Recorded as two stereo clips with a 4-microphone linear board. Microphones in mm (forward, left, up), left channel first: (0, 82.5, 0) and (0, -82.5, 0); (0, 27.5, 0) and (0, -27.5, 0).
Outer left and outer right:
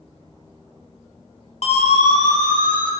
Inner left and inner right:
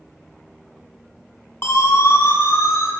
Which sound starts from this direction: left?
A siren, at 1.6 s.